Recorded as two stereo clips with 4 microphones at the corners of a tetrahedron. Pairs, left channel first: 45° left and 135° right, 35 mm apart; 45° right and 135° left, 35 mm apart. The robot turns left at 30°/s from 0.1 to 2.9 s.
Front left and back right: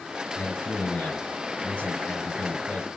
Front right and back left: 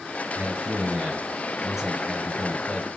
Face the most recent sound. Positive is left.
turn(degrees=20)